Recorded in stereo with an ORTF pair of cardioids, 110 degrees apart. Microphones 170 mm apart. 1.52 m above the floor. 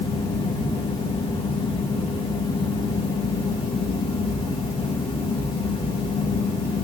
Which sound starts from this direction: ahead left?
A fan, at 0.0 s.